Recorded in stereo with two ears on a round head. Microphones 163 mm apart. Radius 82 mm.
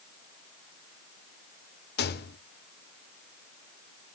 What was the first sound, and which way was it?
A rattle, 60° left (ahead or behind).